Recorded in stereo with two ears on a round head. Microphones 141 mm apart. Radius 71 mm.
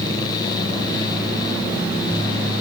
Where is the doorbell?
No doorbell in this recording.